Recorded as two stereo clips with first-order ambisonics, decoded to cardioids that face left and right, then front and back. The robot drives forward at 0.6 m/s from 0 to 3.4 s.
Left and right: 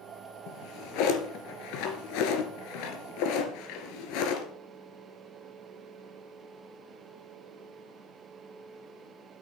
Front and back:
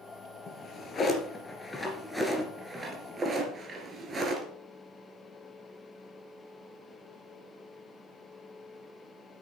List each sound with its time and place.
0.5 s a drawer: 65° left, 2.5 m; by 4.5 s 110° left, 2 m